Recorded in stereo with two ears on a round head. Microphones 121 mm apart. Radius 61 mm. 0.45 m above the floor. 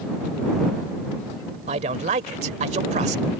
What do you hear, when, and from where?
1.7 s a man speaking: 50° right (ahead or behind)